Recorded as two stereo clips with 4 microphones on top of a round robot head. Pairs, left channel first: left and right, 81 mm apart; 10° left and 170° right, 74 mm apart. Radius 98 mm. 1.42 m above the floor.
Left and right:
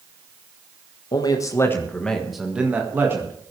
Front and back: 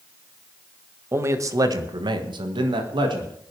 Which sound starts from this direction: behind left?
A man speaking, at 1.1 s.